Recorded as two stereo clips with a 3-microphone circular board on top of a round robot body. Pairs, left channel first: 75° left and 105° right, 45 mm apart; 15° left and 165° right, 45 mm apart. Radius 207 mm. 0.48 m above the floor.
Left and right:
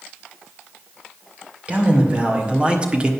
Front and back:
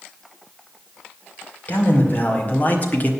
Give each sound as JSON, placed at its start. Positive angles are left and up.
{"t": 1.7, "sound": "a man speaking", "azimuth_deg": -40, "distance_m": 2.5}